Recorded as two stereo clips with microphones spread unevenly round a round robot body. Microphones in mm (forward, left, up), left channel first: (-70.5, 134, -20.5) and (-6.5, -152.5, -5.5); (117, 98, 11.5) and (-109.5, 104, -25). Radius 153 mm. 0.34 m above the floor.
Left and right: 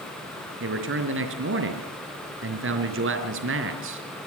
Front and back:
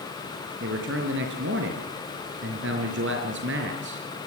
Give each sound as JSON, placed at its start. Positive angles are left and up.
{"t": 0.6, "sound": "a man speaking", "azimuth_deg": -130, "distance_m": 4.0}